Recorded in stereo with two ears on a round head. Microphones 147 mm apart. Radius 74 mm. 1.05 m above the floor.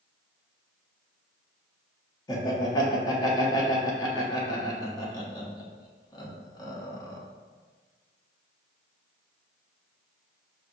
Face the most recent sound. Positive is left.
turn(degrees=25)  # may be behind; listen again after turning